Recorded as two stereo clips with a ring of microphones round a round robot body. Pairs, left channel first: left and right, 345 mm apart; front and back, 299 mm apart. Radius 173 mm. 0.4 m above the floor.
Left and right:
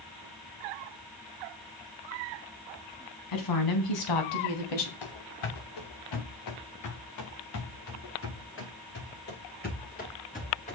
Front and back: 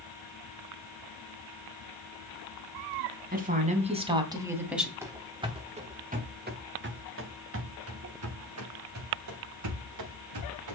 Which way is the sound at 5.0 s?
100° left.